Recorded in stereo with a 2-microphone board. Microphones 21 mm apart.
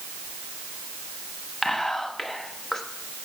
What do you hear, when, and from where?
1.6 s whispering: 25° left (ahead or behind), 0.8 m